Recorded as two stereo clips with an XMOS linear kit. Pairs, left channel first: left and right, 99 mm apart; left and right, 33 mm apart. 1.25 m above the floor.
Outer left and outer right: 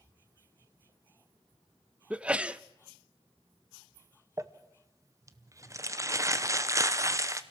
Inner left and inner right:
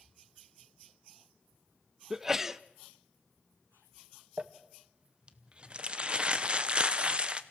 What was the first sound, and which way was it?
A sneeze, 10° right (ahead or behind).